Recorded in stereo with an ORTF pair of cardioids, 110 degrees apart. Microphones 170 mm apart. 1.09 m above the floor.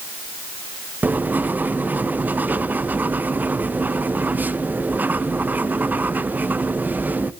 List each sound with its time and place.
1.0 s writing: 10° right, 0.7 m